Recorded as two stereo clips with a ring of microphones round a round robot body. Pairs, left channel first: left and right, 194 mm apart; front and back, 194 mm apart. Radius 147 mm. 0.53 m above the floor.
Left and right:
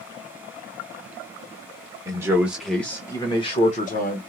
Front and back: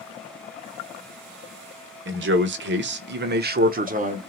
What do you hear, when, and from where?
2.0 s a man speaking: 165° right, 1.3 m; by 4.2 s 130° left, 1.3 m